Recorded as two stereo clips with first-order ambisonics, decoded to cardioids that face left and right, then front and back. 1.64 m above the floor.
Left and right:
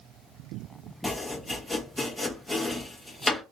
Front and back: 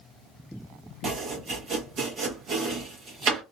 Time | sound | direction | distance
1.0 | chopping | 170° left | 1.0 m